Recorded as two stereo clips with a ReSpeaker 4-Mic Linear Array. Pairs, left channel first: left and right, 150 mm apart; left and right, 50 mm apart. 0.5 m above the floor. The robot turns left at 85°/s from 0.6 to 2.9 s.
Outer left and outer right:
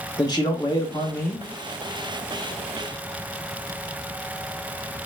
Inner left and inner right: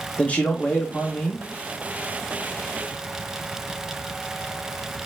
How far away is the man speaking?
About 0.7 m.